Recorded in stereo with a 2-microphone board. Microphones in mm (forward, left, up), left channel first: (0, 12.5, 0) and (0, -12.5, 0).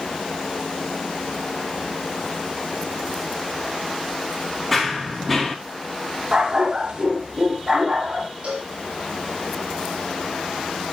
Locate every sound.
4.7 s running footsteps: 5° left (ahead or behind), 3 m
6.3 s a dog barking: 35° right (ahead or behind), 2 m
8.4 s a cowbell: 55° right (ahead or behind), 4.5 m